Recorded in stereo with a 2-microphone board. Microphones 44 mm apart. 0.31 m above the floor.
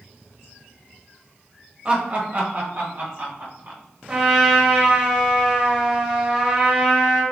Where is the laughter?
30° right (ahead or behind), 1.0 m; by 3.8 s 50° right (ahead or behind), 2 m.